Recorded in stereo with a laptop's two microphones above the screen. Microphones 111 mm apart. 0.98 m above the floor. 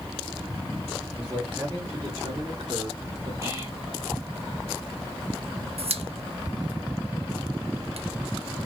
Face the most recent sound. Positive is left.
turn(degrees=-70)  # may be behind; listen again after turning